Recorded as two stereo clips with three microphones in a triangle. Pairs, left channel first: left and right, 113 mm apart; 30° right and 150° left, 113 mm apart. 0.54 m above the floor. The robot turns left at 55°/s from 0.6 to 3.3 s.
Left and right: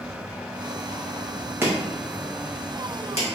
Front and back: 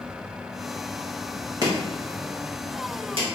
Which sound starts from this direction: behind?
Chopping, at 1.6 s.